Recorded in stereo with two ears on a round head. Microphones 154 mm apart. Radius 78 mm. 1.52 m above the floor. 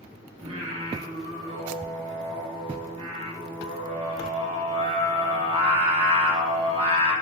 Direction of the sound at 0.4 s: 35° right (ahead or behind).